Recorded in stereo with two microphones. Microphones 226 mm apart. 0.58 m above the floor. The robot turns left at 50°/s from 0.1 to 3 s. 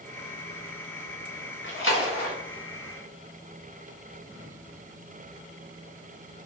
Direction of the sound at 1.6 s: 55° left (ahead or behind).